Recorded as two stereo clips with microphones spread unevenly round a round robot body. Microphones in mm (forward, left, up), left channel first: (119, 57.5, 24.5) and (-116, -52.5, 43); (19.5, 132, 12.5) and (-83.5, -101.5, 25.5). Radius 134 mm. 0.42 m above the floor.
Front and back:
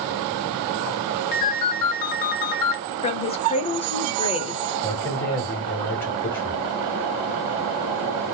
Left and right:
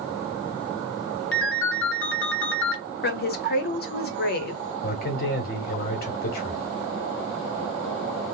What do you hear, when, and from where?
1.3 s a ringtone: 15° left, 0.9 m
3.0 s a woman speaking: 75° left, 1.0 m
4.8 s a man speaking: 100° left, 1.0 m